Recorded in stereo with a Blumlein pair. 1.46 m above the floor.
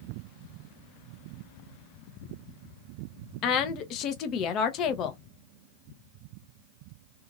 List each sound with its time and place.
3.4 s a woman speaking: 35° left, 0.7 m